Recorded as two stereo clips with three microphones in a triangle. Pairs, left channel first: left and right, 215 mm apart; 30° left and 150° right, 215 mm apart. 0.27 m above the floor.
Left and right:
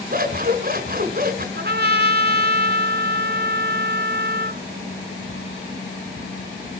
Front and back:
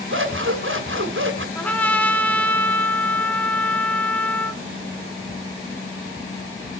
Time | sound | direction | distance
0.1 | scissors | 135° right | 2 m
1.6 | a trumpet | 55° right | 1.4 m